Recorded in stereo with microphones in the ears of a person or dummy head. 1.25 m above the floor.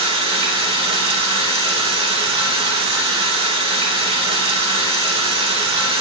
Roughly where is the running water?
Right.